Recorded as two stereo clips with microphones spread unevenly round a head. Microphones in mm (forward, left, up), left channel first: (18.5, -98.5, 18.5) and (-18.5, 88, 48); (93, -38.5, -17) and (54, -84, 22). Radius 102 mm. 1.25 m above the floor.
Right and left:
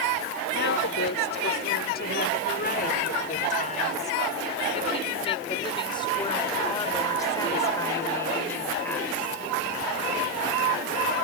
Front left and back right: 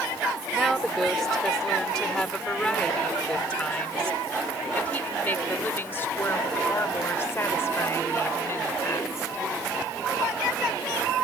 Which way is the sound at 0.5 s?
45° right.